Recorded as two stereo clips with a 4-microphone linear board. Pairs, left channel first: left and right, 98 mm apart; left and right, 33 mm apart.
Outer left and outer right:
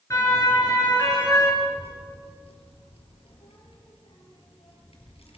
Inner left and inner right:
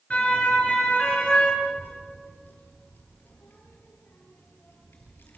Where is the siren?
35° left (ahead or behind), 8.5 m; by 1.5 s 40° left (ahead or behind), 9 m.